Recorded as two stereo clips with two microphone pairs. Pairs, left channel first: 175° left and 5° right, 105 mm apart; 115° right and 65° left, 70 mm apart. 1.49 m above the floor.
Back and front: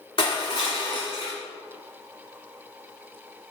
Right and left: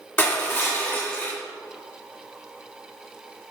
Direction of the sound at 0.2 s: 165° right.